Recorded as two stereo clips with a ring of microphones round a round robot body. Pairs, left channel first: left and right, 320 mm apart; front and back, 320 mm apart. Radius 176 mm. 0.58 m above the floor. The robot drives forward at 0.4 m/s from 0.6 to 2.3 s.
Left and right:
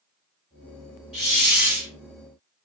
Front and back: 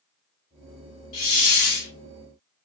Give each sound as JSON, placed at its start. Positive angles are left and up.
{"t": 1.1, "sound": "a hiss", "azimuth_deg": -5, "distance_m": 1.7}